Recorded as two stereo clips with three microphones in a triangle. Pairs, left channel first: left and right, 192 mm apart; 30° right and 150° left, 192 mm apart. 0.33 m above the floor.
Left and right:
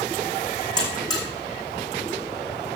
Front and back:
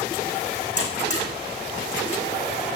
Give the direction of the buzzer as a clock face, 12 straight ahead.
11 o'clock.